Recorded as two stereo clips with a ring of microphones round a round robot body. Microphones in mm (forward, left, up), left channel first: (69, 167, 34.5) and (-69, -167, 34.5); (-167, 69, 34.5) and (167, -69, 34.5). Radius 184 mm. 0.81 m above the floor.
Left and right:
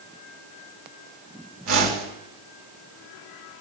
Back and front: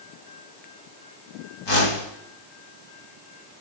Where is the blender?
No blender in this recording.